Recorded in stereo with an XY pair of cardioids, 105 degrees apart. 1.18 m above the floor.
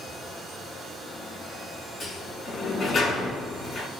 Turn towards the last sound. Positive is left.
turn(degrees=55)